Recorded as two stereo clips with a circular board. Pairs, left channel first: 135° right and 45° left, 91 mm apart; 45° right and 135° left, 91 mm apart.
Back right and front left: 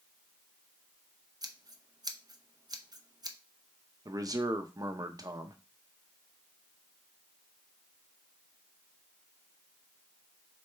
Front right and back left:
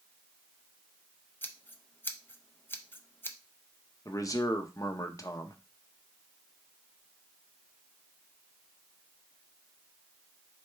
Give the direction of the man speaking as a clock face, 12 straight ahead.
12 o'clock.